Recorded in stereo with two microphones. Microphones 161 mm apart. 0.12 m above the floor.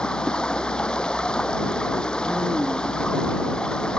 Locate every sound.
0.0 s running water: 5° left (ahead or behind)